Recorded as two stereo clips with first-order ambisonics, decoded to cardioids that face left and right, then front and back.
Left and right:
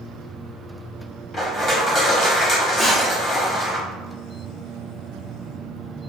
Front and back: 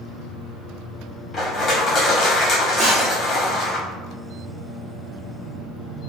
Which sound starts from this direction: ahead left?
Crushing, at 1.3 s.